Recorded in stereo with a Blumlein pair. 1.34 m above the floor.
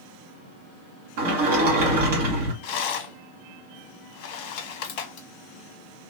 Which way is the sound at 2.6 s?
45° left.